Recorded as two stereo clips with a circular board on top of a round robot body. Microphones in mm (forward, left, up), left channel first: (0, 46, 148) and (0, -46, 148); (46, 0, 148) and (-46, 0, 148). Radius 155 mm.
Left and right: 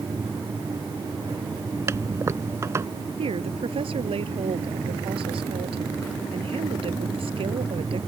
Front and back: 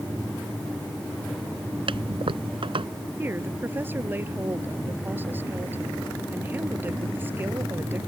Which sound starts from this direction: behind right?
A toilet flushing, at 1.9 s.